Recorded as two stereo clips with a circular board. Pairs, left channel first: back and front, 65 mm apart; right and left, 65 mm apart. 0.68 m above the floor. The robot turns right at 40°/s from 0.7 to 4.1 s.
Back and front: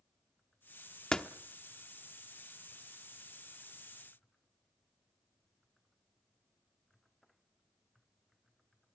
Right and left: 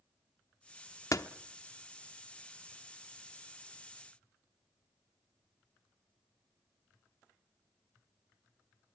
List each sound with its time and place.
1.1 s a door slam: 105° right, 1.0 m; by 1.3 s 100° right, 1.0 m